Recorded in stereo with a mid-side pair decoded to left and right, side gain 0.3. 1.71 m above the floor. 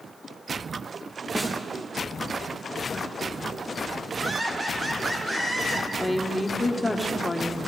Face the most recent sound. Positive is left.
turn(degrees=15)